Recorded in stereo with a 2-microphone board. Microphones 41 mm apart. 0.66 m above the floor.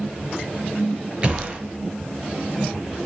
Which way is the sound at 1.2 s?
30° right (ahead or behind).